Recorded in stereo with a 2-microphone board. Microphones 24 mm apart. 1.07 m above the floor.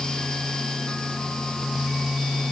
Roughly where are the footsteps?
No footsteps in this recording.